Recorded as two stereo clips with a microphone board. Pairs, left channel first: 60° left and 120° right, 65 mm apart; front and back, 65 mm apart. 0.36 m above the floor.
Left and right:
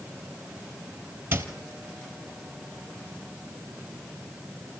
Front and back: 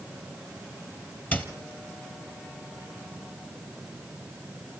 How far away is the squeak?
About 1.3 m.